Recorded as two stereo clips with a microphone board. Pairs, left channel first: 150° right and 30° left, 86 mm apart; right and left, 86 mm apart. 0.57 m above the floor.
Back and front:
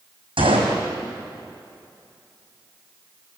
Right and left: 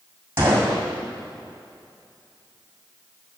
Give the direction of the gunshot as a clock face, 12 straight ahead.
11 o'clock.